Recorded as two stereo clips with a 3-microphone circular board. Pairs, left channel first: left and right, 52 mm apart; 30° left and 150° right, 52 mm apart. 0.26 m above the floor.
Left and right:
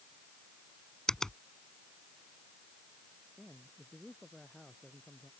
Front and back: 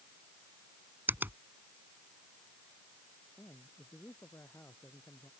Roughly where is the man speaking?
Ahead.